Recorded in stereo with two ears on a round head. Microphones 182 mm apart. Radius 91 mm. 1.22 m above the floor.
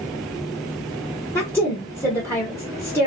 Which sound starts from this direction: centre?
A woman speaking, at 1.4 s.